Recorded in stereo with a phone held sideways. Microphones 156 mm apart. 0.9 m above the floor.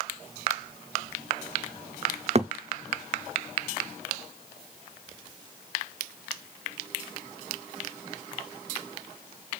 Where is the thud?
45° right (ahead or behind), 0.5 m.